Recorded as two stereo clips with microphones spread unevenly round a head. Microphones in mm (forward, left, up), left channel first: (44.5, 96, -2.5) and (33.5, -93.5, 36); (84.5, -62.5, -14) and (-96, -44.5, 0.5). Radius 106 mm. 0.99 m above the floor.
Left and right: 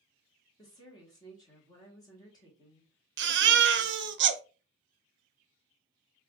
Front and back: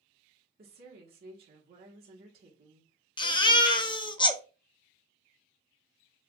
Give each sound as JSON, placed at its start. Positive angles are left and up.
{"t": 0.6, "sound": "a woman speaking", "azimuth_deg": 145, "distance_m": 1.2}
{"t": 3.2, "sound": "a baby crying", "azimuth_deg": -65, "distance_m": 0.6}